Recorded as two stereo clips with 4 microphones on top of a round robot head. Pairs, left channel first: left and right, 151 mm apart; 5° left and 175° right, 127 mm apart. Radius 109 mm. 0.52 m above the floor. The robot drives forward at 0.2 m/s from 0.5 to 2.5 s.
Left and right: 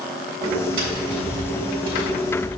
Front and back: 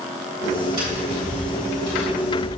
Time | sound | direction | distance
0.8 | tapping | 115° right | 3 m